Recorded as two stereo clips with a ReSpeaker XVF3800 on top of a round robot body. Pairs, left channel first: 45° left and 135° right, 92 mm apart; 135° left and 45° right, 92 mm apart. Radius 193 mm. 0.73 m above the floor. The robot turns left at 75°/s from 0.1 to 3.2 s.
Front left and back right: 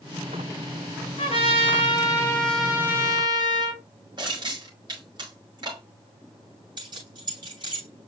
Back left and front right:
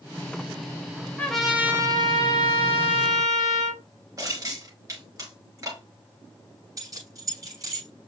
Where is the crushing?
100° right, 5.5 m.